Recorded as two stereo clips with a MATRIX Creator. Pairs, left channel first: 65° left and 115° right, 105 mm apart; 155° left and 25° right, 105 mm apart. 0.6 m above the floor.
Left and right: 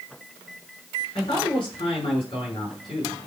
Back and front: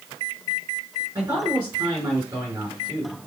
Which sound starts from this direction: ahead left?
A man speaking, at 1.1 s.